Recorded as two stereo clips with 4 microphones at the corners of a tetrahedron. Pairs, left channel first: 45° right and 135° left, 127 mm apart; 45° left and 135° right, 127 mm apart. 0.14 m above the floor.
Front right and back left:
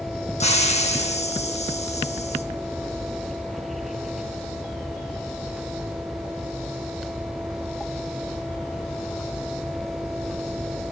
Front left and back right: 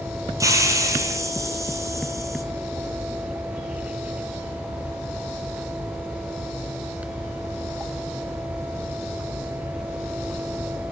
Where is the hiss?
70° right, 1.1 m.